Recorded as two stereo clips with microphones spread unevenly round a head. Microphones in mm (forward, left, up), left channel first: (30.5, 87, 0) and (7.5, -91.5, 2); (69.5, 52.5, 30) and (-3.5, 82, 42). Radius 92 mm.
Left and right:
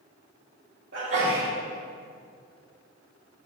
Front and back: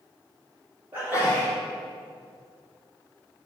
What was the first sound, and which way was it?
A sneeze, 130° right.